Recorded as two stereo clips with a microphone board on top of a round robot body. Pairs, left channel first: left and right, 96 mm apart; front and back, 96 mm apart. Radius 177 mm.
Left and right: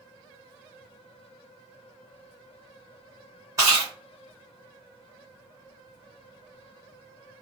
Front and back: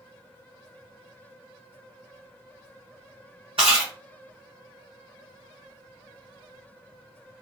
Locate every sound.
3.6 s chewing: 145° right, 0.5 m